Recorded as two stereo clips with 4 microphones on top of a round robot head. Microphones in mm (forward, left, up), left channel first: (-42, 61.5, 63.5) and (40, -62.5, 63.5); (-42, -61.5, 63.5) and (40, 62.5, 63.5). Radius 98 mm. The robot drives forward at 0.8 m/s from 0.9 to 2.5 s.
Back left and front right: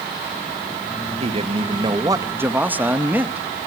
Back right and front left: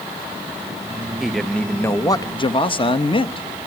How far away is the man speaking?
About 1.1 m.